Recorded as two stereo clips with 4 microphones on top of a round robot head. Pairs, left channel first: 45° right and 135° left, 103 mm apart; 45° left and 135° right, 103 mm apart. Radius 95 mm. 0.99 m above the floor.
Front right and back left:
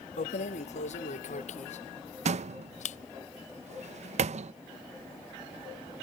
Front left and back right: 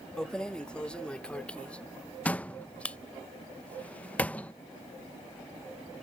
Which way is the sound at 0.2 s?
40° right.